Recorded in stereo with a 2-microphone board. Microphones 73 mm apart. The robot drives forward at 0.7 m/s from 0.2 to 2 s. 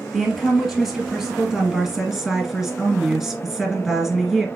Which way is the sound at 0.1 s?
Centre (ahead or behind).